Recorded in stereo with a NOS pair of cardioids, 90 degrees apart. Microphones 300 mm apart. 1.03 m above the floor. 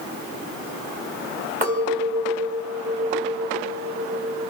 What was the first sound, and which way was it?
A clink, 25° right.